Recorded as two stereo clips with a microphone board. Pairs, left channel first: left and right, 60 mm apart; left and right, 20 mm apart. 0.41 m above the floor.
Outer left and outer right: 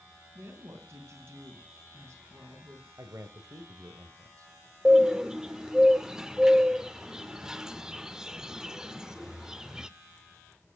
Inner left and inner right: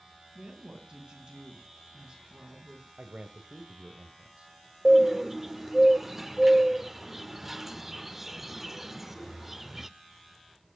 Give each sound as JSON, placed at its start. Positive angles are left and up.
{"t": 0.3, "sound": "a woman speaking", "side_deg": -45, "distance_m": 4.5}
{"t": 3.0, "sound": "a man speaking", "side_deg": -60, "distance_m": 1.6}
{"t": 4.8, "sound": "a bird", "side_deg": -10, "distance_m": 0.6}